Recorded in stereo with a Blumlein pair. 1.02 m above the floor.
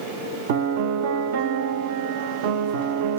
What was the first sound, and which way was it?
A piano, 50° right.